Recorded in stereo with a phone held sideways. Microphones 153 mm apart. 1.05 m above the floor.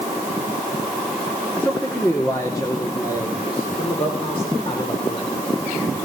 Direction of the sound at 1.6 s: 10° left (ahead or behind).